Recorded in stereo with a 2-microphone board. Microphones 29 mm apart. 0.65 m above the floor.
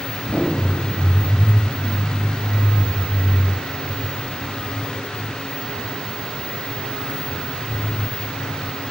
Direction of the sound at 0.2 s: 80° left.